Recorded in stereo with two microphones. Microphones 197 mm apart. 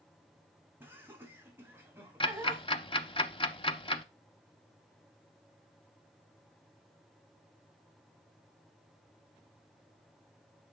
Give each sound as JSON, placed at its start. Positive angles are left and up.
{"t": 0.8, "sound": "laughter", "side_deg": -10, "distance_m": 2.0}
{"t": 2.2, "sound": "ticking", "side_deg": 25, "distance_m": 0.6}